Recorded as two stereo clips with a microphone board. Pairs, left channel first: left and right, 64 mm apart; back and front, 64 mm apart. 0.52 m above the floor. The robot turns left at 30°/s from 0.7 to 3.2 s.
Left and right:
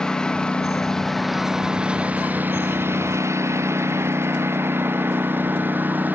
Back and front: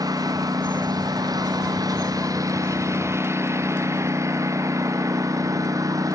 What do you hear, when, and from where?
0.0 s a lawn mower: 10° left; by 6.2 s 25° right